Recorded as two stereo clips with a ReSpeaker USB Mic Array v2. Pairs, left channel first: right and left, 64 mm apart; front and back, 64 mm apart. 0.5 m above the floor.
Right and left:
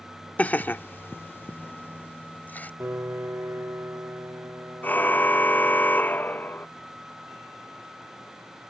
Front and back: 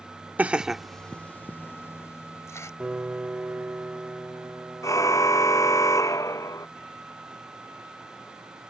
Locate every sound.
0.4 s laughter: 135° right; by 2.7 s 30° right
2.8 s a piano: 120° left
4.8 s a car horn: 30° right